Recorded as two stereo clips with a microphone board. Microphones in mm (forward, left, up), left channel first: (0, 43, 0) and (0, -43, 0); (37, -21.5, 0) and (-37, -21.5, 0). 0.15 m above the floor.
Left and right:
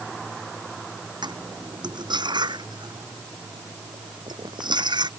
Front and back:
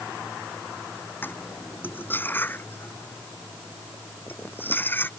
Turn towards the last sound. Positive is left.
turn(degrees=-60)